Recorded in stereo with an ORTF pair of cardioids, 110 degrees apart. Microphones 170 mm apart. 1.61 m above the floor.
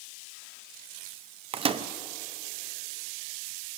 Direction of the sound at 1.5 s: 35° right.